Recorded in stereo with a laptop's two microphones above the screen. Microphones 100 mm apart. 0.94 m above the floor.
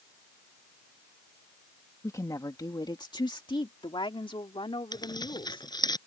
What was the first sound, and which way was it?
A woman speaking, 30° left (ahead or behind).